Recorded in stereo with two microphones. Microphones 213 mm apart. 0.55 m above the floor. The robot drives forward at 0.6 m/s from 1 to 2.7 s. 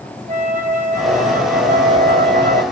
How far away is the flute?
About 2.5 m.